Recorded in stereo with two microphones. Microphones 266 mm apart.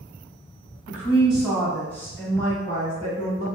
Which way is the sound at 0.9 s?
10° right (ahead or behind).